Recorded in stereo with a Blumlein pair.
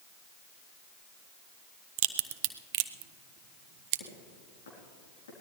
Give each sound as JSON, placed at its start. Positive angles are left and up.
{"t": 2.0, "sound": "a crack", "azimuth_deg": -40, "distance_m": 0.6}
{"t": 4.0, "sound": "footsteps", "azimuth_deg": 65, "distance_m": 4.5}